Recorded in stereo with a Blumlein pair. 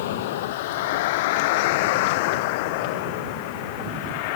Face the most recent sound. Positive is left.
turn(degrees=45)